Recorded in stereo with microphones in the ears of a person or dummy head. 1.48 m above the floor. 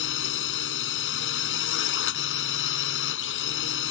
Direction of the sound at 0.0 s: 70° left (ahead or behind).